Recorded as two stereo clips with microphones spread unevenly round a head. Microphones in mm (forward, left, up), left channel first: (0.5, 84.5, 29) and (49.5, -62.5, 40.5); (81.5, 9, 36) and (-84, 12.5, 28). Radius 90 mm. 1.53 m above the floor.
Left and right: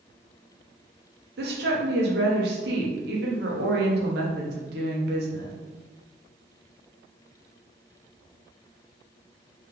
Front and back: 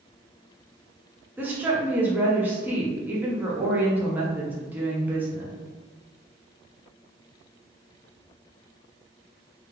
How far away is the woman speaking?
About 0.9 m.